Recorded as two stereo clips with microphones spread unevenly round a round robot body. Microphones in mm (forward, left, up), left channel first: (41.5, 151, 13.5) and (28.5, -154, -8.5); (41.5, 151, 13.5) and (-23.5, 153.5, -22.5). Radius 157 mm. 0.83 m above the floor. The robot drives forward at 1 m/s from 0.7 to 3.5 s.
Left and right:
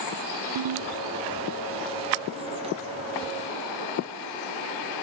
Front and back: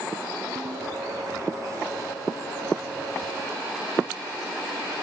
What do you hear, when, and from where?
0.6 s a ringtone: 125° right; by 0.9 s 135° right